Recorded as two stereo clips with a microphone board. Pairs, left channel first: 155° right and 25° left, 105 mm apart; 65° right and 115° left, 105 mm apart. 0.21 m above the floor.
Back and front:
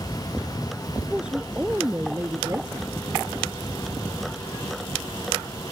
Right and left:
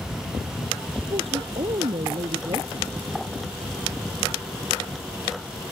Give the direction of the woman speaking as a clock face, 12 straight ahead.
9 o'clock.